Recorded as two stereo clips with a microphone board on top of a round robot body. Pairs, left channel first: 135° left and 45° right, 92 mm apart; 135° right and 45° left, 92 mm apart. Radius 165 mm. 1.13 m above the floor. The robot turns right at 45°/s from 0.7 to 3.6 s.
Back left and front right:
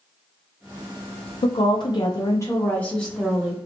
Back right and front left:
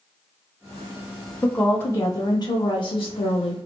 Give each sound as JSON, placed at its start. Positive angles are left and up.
{"t": 1.4, "sound": "a woman speaking", "azimuth_deg": 145, "distance_m": 0.6}